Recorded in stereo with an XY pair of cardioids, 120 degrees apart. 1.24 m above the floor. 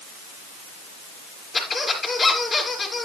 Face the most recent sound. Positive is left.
turn(degrees=25)